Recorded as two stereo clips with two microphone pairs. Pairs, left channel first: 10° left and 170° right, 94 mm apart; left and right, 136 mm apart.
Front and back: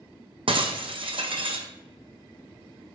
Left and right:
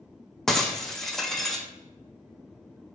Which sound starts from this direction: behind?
Breaking glass, at 0.5 s.